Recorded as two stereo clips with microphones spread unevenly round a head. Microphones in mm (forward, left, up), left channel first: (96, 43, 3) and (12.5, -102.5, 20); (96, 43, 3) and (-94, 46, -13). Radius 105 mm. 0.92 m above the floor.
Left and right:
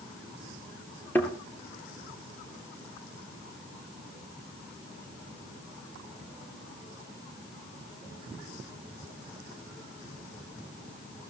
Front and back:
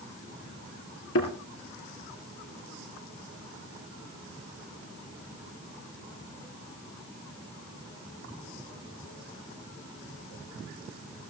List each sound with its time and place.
1.1 s a thud: 20° right, 3 m